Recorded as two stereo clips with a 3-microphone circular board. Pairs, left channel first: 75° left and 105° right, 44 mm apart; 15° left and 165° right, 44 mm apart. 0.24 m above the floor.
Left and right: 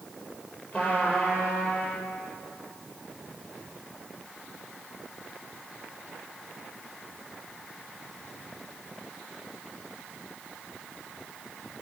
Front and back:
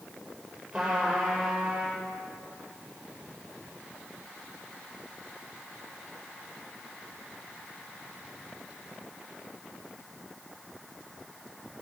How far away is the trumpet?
About 5 m.